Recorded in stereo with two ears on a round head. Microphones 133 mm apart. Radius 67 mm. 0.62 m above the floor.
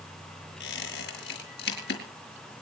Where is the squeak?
80° left, 5 m.